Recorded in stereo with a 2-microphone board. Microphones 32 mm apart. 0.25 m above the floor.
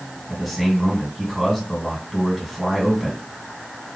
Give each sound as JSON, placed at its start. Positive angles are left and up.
{"t": 0.3, "sound": "a man speaking", "side_deg": 0, "distance_m": 2.5}